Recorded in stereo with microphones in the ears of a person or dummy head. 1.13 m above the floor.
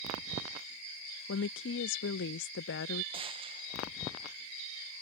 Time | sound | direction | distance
1.3 | a woman speaking | 60° left (ahead or behind) | ?
3.1 | a gunshot | 25° right (ahead or behind) | ?